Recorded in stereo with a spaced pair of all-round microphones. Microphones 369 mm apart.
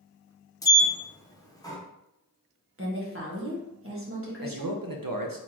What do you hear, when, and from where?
0.6 s a sliding door: 10° left (ahead or behind), 0.8 m
2.8 s a woman speaking: 35° right (ahead or behind), 1.5 m
4.4 s a man speaking: 65° right (ahead or behind), 0.8 m